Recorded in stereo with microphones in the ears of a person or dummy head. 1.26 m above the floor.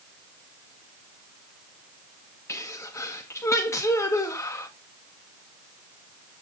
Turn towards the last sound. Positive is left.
turn(degrees=15)  # may be behind; listen again after turning